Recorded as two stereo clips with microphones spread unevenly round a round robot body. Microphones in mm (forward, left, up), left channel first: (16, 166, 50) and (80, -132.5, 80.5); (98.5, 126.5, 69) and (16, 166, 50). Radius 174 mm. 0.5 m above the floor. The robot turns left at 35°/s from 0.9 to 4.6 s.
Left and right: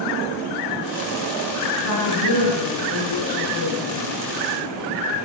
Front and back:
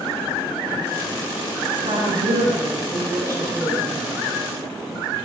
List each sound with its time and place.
1.8 s a woman speaking: 150° left, 7 m; by 4.1 s 70° left, 7 m